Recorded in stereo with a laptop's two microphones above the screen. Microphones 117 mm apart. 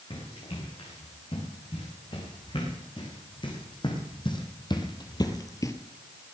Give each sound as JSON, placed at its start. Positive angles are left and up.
{"t": 0.1, "sound": "running footsteps", "side_deg": 45, "distance_m": 6.5}